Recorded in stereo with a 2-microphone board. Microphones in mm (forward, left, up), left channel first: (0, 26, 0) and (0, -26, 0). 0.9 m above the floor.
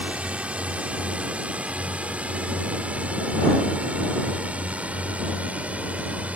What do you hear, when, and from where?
0.0 s a drone: 20° right (ahead or behind); by 6.4 s 25° right (ahead or behind)